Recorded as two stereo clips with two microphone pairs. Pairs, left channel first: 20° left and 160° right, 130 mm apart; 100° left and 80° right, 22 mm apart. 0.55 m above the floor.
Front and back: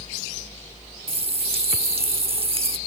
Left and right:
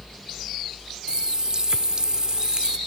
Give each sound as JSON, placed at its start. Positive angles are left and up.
{"t": 1.1, "sound": "a running tap", "azimuth_deg": -125, "distance_m": 0.7}